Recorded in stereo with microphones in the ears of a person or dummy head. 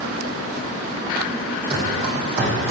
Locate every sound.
1.7 s running footsteps: 30° right (ahead or behind), 4 m; by 2.7 s 35° right (ahead or behind), 5 m